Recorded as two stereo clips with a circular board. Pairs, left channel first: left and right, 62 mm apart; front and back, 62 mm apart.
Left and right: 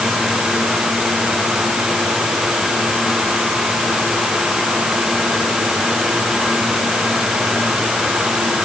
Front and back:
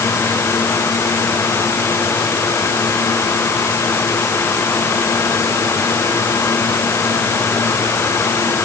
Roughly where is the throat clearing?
I don't hear throat clearing.